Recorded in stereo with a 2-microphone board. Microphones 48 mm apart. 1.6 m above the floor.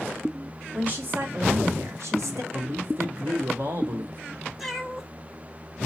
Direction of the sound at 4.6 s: Centre (ahead or behind).